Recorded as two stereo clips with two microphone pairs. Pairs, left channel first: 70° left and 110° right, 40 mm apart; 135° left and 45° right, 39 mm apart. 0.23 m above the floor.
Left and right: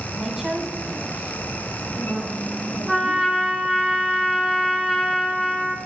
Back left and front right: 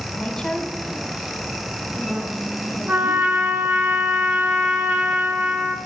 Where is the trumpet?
20° right, 1.2 m.